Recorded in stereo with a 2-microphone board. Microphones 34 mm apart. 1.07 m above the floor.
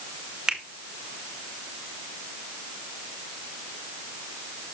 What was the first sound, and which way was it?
A finger snap, 20° right (ahead or behind).